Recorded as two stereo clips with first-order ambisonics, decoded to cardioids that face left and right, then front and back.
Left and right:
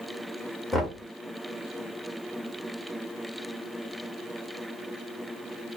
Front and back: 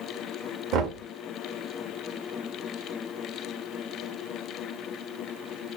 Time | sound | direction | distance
0.7 | knocking | straight behind | 0.8 m